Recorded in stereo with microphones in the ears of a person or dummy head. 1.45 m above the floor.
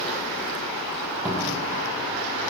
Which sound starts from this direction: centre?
A cupboard door, at 1.2 s.